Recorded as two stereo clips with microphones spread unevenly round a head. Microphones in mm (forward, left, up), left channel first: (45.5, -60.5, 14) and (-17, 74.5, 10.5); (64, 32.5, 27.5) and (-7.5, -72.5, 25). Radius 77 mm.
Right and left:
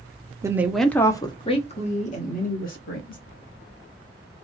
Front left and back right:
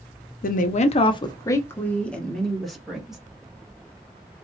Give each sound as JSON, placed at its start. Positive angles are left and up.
{"t": 0.4, "sound": "a woman speaking", "azimuth_deg": 45, "distance_m": 0.8}